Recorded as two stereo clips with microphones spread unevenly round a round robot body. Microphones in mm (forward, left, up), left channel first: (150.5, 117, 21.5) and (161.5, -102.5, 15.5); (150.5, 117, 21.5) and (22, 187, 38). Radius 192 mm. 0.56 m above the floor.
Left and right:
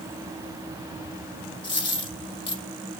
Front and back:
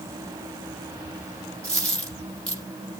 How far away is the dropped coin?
About 4.5 m.